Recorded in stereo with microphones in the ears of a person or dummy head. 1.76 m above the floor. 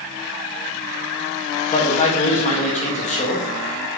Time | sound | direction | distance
1.7 | a man speaking | 35° left (ahead or behind) | 1.5 m